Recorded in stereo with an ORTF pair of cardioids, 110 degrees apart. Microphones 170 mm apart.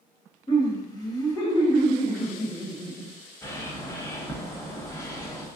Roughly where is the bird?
Ahead.